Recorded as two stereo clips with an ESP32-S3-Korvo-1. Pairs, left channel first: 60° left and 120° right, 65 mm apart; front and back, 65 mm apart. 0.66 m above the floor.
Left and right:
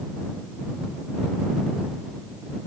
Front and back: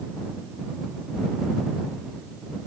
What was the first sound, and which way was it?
Only background noise.